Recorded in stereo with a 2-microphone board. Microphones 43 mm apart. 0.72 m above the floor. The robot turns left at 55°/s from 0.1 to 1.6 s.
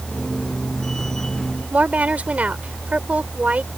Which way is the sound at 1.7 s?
35° right (ahead or behind).